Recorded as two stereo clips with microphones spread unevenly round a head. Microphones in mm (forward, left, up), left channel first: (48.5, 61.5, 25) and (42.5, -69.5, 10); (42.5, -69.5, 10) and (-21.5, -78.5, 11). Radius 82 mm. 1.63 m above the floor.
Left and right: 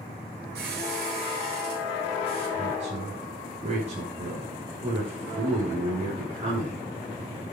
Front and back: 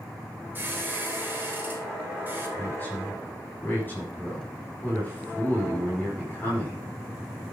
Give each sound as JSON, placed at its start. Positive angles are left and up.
{"t": 0.6, "sound": "a squeak", "azimuth_deg": -110, "distance_m": 3.5}
{"t": 2.6, "sound": "a woman speaking", "azimuth_deg": -55, "distance_m": 5.5}